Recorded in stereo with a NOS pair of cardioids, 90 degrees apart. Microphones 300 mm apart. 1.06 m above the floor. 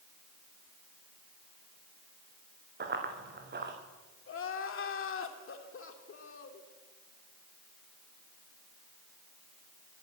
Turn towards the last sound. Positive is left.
turn(degrees=45)